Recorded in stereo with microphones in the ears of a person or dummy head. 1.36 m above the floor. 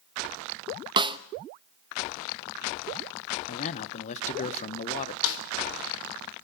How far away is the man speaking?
About 1.5 m.